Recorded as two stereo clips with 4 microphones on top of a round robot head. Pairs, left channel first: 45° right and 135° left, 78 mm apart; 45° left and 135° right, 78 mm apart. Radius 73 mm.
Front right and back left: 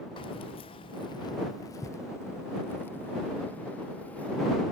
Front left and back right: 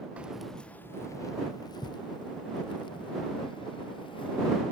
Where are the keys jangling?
60° right; by 4.6 s 30° left.